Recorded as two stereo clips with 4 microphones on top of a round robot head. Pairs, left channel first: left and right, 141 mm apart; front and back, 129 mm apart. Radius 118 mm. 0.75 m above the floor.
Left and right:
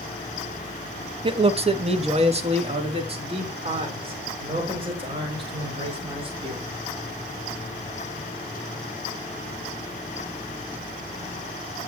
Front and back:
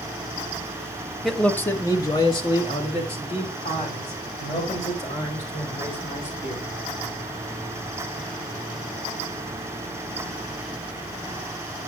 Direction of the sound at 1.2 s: 90° right.